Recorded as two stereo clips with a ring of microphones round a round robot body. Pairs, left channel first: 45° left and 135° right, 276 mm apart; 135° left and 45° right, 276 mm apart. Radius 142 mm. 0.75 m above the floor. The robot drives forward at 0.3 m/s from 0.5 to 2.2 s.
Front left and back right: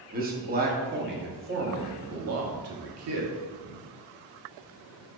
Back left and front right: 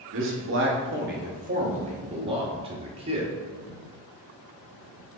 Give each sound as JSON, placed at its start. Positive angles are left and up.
{"t": 0.1, "sound": "a man speaking", "azimuth_deg": -80, "distance_m": 1.0}